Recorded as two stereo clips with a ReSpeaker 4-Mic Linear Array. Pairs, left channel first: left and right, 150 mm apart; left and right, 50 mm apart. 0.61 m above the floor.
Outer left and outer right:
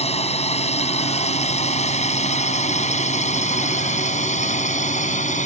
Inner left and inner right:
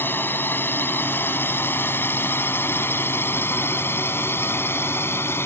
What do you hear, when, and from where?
0.0 s a drone: 45° left (ahead or behind); by 5.5 s 55° left (ahead or behind)